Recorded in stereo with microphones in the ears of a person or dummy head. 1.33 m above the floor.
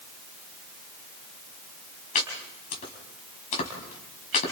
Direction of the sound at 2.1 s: 40° left (ahead or behind).